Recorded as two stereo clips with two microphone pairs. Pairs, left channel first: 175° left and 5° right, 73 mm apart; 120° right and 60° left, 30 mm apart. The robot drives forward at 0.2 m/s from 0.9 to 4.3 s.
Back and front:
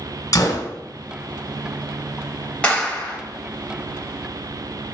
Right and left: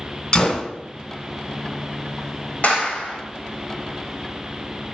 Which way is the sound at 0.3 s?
165° right.